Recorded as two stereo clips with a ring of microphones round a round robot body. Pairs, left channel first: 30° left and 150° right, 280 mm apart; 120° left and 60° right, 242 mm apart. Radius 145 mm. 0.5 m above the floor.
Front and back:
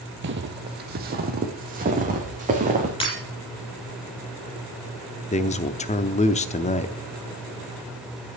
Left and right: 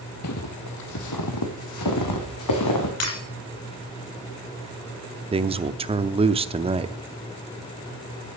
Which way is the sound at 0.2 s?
160° left.